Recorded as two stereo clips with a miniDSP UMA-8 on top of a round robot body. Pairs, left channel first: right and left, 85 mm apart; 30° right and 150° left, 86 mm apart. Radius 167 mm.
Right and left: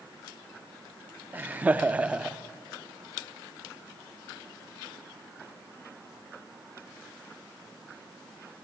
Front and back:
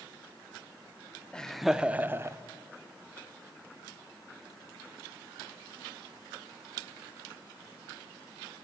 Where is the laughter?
40° left, 0.9 m; by 2.4 s 160° left, 1.0 m.